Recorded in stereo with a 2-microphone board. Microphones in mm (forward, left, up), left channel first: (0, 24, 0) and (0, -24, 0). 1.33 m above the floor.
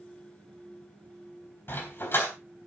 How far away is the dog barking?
About 4.5 m.